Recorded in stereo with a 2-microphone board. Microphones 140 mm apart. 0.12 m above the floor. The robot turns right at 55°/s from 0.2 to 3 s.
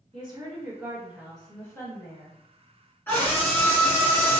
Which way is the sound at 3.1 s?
15° left (ahead or behind).